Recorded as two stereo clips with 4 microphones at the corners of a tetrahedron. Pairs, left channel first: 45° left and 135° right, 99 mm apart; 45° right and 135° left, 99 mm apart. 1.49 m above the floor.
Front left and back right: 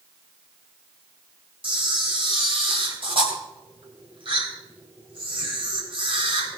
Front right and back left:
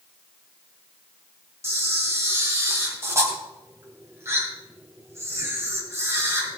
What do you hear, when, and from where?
1.6 s a camera shutter: 165° right, 3 m